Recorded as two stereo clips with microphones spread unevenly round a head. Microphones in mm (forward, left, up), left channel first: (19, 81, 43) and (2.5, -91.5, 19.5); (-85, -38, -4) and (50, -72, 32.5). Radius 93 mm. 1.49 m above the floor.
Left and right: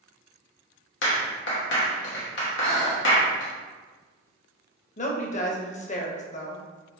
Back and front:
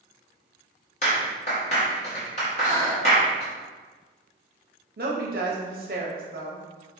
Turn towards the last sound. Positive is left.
turn(degrees=35)